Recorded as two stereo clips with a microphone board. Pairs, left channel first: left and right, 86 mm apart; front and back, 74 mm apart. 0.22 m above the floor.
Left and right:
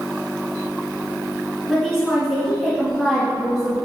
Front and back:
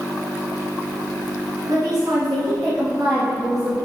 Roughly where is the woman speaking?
Behind.